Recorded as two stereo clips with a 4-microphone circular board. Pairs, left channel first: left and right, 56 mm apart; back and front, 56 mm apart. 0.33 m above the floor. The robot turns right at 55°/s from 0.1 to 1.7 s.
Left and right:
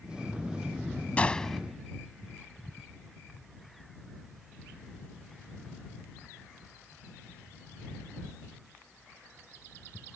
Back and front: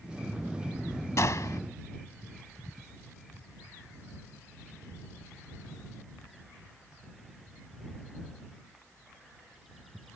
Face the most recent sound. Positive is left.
turn(degrees=-175)